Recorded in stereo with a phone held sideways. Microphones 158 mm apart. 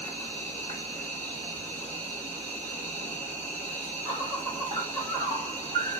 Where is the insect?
50° right (ahead or behind), 2 m.